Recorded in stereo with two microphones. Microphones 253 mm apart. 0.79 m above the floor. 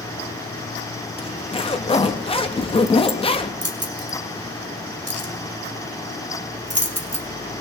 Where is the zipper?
20° left (ahead or behind), 0.6 m.